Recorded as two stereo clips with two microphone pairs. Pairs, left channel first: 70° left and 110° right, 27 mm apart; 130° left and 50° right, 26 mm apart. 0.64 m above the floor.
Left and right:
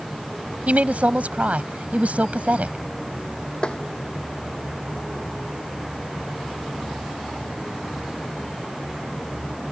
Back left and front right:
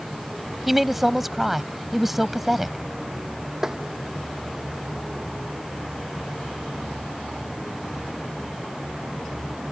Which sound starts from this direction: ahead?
Tapping, at 3.6 s.